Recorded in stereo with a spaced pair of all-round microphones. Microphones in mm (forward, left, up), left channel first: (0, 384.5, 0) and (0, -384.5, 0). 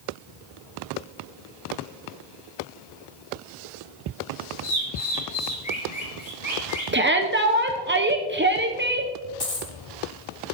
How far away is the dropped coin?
About 1.5 m.